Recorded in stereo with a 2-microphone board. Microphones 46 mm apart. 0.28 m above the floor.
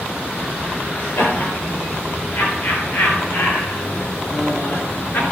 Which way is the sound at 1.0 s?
65° left (ahead or behind).